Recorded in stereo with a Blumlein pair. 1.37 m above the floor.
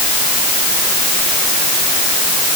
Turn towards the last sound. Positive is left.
No sound to turn to.